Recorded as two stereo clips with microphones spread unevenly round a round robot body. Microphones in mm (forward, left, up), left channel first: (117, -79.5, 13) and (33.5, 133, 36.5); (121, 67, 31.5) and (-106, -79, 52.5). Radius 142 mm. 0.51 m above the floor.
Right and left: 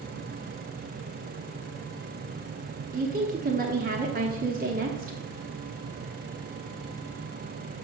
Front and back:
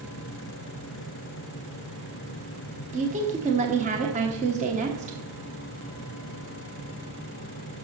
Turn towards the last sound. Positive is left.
turn(degrees=155)